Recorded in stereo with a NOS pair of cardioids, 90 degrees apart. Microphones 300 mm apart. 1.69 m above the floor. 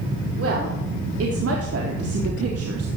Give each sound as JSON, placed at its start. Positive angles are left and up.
{"t": 0.4, "sound": "a woman speaking", "azimuth_deg": -50, "distance_m": 4.5}